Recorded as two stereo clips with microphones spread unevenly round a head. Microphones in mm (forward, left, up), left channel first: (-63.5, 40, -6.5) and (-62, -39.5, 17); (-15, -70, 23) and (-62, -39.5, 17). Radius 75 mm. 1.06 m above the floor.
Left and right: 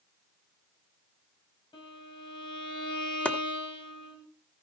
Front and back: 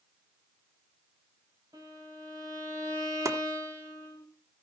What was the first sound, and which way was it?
A violin, 105° left.